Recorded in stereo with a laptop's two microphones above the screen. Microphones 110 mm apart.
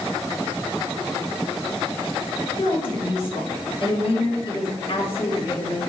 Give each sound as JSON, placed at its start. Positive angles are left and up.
{"t": 2.6, "sound": "a woman speaking", "side_deg": 45, "distance_m": 2.0}